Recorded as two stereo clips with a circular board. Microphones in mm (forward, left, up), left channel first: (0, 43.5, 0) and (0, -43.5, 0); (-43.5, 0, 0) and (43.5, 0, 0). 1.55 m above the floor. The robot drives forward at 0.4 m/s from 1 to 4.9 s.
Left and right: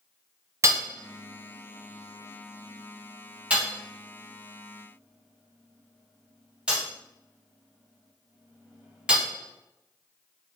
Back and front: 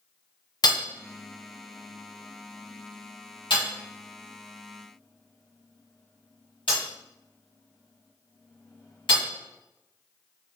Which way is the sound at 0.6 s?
145° right.